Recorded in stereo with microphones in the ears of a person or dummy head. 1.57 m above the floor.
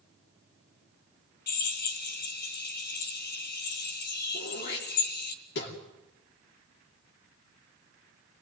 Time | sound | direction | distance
1.5 | a drill | 55° left (ahead or behind) | 1.4 m
4.3 | throat clearing | 60° left (ahead or behind) | 3.5 m